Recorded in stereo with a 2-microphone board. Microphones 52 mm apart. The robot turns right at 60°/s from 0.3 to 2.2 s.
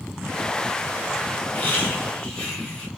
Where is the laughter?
105° left, 1.3 m; by 2.9 s 145° left, 1.3 m.